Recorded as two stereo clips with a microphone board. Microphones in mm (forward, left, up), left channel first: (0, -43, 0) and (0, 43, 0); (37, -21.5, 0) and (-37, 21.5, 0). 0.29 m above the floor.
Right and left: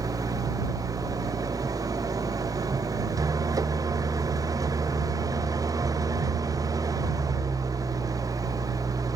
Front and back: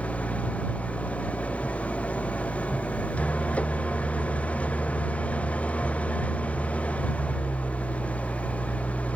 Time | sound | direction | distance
0.0 | an engine running | 45° left | ?